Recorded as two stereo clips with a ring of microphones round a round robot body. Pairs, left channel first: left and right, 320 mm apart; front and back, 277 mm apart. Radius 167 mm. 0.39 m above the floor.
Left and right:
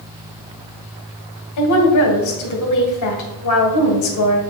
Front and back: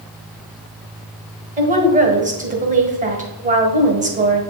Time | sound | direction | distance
1.6 | a woman speaking | 120° left | 1.6 m